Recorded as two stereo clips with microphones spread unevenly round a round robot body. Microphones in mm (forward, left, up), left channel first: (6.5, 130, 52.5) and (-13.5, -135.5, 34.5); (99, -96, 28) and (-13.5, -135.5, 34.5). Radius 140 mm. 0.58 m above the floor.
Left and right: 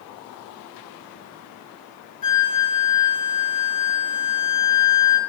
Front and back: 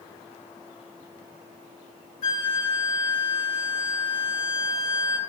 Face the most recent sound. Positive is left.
turn(degrees=25)